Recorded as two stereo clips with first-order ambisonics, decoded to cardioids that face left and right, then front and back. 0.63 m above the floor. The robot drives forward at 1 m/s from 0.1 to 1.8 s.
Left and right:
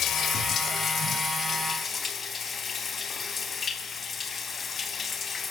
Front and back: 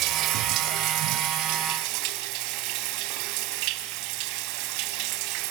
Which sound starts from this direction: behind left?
Running water, at 0.0 s.